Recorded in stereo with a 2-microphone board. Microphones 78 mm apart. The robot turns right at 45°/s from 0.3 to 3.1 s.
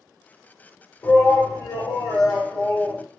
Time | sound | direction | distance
1.0 | a shout | 45° left | 1.4 m